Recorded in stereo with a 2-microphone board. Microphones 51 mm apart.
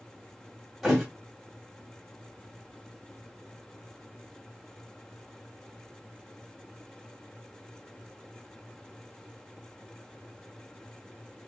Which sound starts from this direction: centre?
A thud, at 0.8 s.